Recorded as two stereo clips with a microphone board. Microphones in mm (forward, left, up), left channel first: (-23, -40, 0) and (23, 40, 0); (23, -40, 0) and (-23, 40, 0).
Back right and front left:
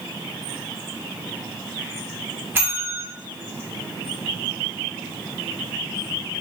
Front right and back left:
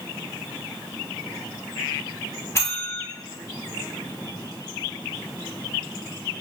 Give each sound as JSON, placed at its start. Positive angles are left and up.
{"t": 2.5, "sound": "a bell", "azimuth_deg": -5, "distance_m": 1.5}